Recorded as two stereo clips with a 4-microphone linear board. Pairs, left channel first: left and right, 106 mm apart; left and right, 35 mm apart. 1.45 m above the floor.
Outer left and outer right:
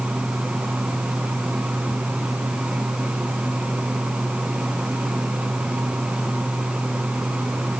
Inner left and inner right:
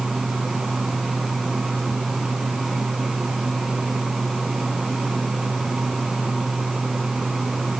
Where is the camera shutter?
No camera shutter in this recording.